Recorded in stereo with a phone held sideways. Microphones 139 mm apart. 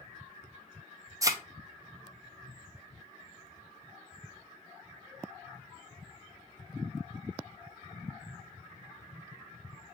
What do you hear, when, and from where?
1.2 s a thud: 25° right (ahead or behind), 0.6 m